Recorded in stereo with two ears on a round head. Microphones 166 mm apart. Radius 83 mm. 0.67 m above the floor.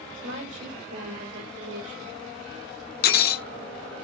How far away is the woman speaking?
About 2.5 m.